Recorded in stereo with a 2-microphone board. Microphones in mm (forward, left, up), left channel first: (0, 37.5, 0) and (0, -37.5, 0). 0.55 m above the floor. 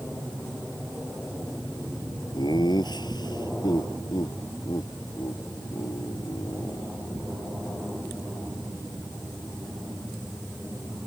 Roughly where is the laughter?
Left.